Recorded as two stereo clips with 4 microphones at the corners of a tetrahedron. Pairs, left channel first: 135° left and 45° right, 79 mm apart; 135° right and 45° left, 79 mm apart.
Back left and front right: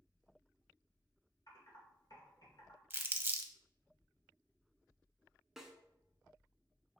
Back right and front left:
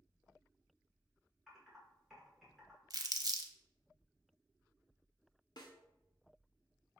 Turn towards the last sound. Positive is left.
turn(degrees=-130)